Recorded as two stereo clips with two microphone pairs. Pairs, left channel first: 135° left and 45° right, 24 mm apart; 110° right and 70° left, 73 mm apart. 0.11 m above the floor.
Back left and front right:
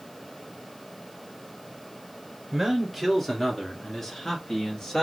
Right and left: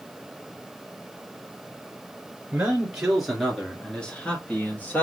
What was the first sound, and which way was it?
A man speaking, 20° left.